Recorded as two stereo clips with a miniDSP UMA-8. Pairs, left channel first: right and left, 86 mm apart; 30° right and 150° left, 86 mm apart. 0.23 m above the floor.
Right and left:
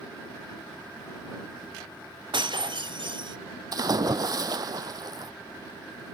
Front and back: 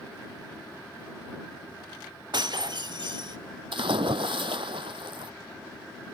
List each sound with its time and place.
2.3 s breaking glass: 115° left
3.7 s a splash: 130° left